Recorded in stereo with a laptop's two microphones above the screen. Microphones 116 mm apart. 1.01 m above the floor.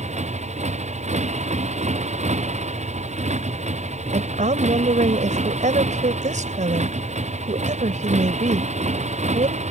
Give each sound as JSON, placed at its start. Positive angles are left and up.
{"t": 0.0, "sound": "a motorcycle", "side_deg": -70}
{"t": 4.1, "sound": "a woman speaking", "side_deg": -80}